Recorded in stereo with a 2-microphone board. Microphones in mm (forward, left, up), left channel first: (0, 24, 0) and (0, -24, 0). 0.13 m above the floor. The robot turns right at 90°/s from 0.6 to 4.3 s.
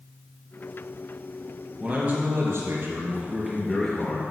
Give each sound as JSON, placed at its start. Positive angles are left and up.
{"t": 1.8, "sound": "a man speaking", "azimuth_deg": -170, "distance_m": 2.5}